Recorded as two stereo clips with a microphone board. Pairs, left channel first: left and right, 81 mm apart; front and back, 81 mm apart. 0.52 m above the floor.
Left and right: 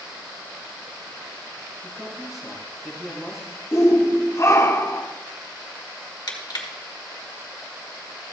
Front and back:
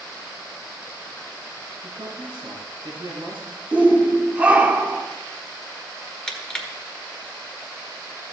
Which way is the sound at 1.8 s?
175° right.